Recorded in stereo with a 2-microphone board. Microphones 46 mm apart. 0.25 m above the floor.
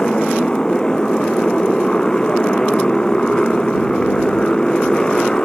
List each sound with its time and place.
0.0 s a motorcycle: 15° left (ahead or behind)